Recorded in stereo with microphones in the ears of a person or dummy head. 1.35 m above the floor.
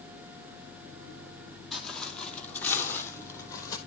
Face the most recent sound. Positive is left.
turn(degrees=25)  # may be behind; listen again after turning